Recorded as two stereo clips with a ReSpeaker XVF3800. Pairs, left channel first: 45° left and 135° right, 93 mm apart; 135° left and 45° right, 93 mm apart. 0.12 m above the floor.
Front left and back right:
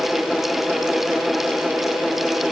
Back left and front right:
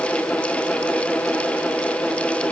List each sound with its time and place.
Only background noise.